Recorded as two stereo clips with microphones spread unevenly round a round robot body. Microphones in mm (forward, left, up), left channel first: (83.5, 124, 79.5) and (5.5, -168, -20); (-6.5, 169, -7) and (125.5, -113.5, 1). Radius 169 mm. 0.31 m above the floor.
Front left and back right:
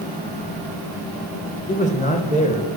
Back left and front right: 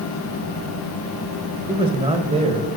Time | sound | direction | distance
1.7 | a man speaking | 5° right | 1.4 m